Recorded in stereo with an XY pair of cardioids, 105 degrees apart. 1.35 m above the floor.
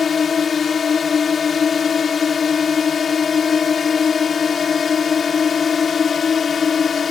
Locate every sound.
0.0 s a drone: 35° left